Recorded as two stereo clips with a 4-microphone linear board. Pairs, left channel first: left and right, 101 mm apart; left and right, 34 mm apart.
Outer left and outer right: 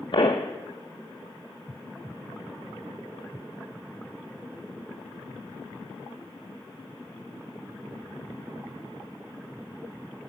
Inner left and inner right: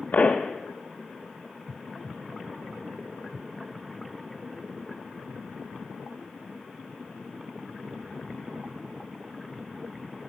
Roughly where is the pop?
Left.